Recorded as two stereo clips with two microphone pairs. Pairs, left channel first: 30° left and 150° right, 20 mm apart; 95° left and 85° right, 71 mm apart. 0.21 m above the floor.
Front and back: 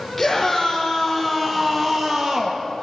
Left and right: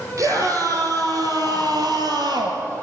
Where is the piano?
No piano in this recording.